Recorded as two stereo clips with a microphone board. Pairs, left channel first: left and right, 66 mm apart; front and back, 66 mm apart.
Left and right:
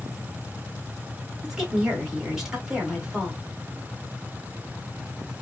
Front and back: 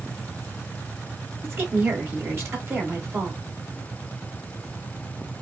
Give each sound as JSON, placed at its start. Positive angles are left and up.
{"t": 1.4, "sound": "a woman speaking", "azimuth_deg": -165, "distance_m": 1.1}